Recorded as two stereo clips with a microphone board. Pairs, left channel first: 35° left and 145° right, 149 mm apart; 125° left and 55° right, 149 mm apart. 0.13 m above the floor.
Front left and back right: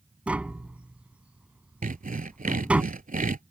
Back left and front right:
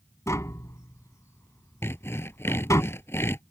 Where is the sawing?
165° right.